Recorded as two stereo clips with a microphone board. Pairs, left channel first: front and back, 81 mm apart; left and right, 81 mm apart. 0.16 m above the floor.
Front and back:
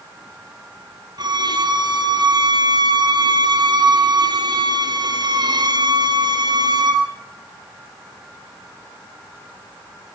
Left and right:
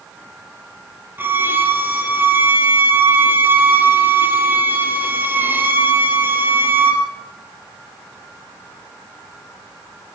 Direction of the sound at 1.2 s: 150° right.